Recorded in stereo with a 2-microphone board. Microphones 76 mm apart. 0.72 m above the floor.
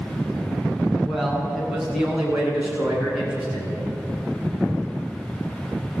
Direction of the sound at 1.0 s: Centre (ahead or behind).